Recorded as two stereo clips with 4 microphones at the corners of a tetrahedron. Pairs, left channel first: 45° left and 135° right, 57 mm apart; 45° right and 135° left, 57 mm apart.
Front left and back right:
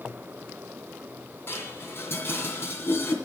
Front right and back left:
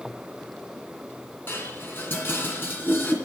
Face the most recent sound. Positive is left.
turn(degrees=0)